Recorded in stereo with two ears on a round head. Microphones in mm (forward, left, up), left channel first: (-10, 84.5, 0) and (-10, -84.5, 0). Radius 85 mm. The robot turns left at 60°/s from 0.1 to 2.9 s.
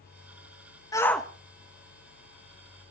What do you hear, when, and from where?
0.9 s a shout: 20° left (ahead or behind), 1.4 m; by 2.9 s 70° right (ahead or behind), 1.4 m